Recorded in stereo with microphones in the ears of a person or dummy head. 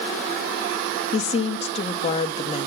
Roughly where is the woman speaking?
Left.